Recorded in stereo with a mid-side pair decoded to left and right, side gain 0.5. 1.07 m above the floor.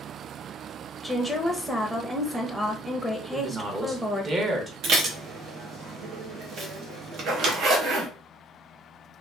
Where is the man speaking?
35° right, 1.1 m.